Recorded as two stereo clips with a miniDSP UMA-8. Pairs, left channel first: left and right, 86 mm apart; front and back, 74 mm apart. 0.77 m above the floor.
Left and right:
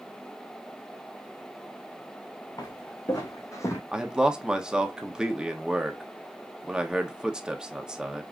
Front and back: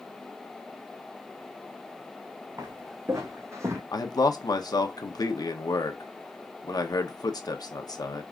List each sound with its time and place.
2.6 s footsteps: 130° left, 3 m; by 3.8 s 140° left, 1.2 m
3.9 s a man speaking: 10° right, 1.0 m